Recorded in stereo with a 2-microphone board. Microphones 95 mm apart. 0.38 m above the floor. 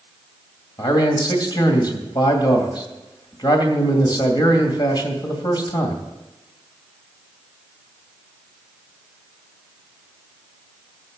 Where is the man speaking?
50° left (ahead or behind), 2.5 m.